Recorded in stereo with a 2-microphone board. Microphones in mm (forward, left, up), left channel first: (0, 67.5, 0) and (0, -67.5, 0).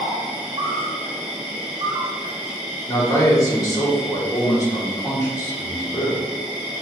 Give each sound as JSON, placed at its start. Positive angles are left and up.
{"t": 0.0, "sound": "an insect", "side_deg": -30, "distance_m": 1.2}
{"t": 2.9, "sound": "a man speaking", "side_deg": 25, "distance_m": 1.5}